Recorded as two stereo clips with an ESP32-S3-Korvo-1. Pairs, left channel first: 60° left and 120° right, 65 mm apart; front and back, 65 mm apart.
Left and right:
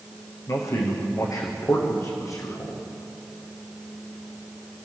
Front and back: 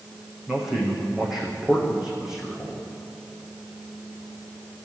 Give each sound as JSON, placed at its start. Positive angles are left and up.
{"t": 0.5, "sound": "a man speaking", "azimuth_deg": 95, "distance_m": 6.0}